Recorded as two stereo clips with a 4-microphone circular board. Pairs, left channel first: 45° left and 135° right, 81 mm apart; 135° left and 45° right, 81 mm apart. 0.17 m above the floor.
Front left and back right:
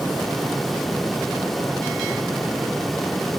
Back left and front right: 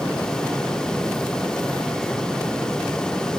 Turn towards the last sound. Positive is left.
No sound to turn to.